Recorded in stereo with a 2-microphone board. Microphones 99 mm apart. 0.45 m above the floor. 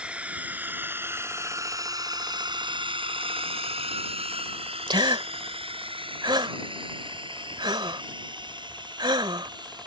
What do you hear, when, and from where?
0.0 s a drone: 15° right (ahead or behind); by 9.9 s 45° right (ahead or behind)
4.9 s a gasp: 50° right (ahead or behind)